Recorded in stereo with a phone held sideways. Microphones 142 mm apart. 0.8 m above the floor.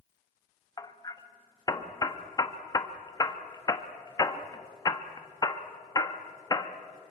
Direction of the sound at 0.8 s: 25° left (ahead or behind).